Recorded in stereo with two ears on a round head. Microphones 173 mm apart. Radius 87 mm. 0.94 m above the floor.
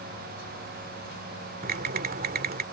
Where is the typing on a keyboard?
50° right (ahead or behind).